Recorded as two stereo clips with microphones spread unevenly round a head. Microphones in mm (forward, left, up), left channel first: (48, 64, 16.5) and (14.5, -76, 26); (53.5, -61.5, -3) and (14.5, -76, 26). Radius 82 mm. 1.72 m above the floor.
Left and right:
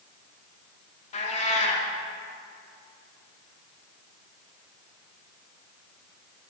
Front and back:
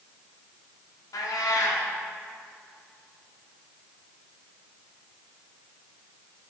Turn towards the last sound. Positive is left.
turn(degrees=40)